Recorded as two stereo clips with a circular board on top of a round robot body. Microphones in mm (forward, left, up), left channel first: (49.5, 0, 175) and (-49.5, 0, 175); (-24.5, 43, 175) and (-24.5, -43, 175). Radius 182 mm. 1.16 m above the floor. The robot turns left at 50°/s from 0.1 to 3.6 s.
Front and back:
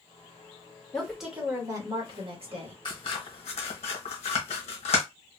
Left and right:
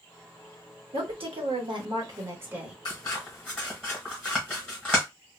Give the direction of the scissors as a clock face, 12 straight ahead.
10 o'clock.